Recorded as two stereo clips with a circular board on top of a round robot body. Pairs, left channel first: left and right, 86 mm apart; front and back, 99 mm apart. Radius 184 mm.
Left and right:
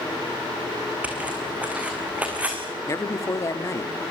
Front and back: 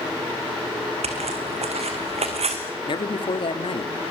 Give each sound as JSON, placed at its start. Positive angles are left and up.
{"t": 1.0, "sound": "footsteps", "azimuth_deg": -165, "distance_m": 3.5}
{"t": 2.9, "sound": "a man speaking", "azimuth_deg": 35, "distance_m": 2.0}